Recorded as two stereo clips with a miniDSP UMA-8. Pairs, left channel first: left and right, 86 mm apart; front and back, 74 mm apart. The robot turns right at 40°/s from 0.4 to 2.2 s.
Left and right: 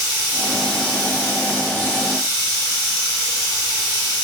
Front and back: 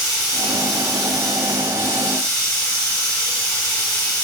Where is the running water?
105° right, 1.3 m; by 4.2 s 35° right, 1.3 m.